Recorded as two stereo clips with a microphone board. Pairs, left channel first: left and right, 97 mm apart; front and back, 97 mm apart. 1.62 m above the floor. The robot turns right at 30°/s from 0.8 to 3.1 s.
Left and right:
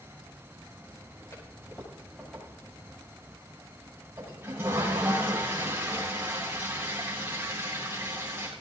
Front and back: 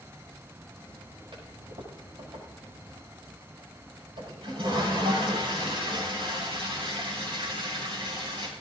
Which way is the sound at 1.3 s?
150° left.